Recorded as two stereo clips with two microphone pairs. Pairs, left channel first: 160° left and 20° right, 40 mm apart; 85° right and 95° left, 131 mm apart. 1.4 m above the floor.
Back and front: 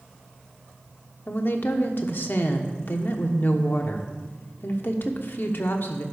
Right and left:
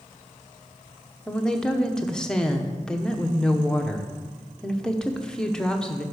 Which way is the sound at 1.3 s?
170° right.